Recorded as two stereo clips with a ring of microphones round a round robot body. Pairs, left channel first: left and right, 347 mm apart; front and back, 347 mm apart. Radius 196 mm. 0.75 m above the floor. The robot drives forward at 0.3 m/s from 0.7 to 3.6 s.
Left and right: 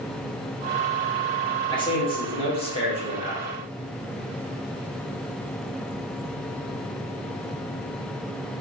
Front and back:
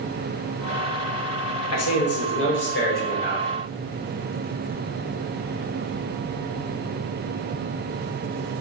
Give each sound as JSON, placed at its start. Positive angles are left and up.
{"t": 1.7, "sound": "a man speaking", "azimuth_deg": 20, "distance_m": 1.1}